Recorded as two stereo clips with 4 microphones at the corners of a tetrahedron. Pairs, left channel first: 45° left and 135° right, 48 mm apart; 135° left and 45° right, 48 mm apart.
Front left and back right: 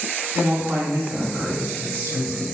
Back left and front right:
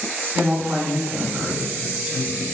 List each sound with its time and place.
0.3 s a woman speaking: 105° right, 1.9 m